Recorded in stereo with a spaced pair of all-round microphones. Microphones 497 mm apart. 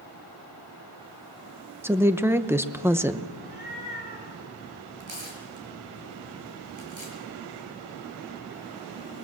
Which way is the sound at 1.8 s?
5° right (ahead or behind).